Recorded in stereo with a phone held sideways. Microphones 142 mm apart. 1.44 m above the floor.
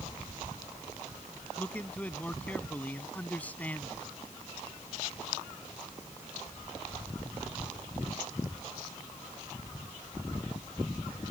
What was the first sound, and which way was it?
A man speaking, 10° left (ahead or behind).